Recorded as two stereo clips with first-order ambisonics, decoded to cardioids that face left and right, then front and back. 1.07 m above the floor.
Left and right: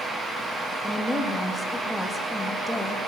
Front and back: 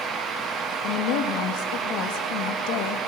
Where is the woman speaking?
5° left, 1.5 m.